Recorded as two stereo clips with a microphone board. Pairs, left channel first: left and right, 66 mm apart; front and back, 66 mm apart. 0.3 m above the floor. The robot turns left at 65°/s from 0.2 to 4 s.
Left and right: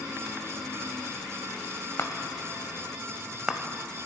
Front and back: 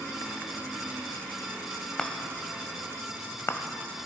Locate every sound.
2.0 s a chime: 75° left, 0.9 m; by 4.1 s 60° right, 0.9 m